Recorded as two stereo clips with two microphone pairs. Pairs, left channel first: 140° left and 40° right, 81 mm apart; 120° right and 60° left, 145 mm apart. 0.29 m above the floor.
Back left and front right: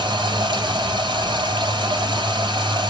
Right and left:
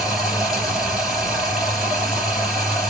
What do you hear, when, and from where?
0.0 s running water: 25° right, 3 m